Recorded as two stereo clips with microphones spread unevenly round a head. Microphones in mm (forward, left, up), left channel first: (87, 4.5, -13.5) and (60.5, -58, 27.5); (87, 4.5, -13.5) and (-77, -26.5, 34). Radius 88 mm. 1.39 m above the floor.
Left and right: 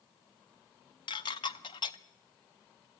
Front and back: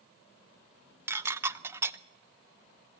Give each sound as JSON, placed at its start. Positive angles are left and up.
{"t": 1.1, "sound": "dishes clattering", "azimuth_deg": 135, "distance_m": 0.6}